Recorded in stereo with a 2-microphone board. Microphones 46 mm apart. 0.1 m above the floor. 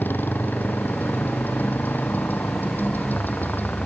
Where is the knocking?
I don't hear knocking.